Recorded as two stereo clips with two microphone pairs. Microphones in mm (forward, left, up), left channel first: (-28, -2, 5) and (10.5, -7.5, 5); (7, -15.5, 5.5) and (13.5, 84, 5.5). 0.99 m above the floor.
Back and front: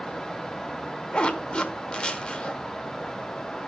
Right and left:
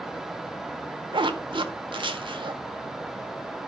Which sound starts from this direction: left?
A zipper, at 1.1 s.